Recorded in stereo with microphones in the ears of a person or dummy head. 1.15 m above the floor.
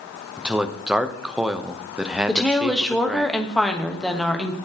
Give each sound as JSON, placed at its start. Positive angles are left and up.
{"t": 0.4, "sound": "a man speaking", "side_deg": 0, "distance_m": 0.7}
{"t": 2.3, "sound": "a woman speaking", "side_deg": 5, "distance_m": 1.1}